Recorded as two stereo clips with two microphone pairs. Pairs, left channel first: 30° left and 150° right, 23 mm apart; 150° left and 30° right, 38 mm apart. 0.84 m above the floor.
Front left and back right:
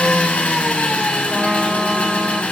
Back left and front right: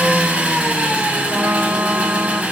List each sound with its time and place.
0.0 s an engine running: 25° left, 1.4 m
1.3 s a trumpet: 65° right, 1.4 m